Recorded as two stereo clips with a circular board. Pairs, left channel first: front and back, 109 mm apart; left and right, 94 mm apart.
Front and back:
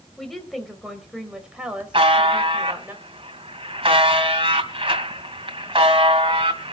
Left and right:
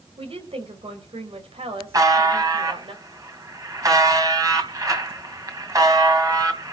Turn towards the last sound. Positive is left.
turn(degrees=-140)